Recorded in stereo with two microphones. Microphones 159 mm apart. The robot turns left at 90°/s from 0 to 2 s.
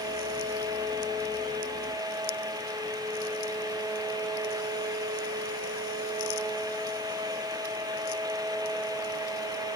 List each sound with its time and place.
Only background noise.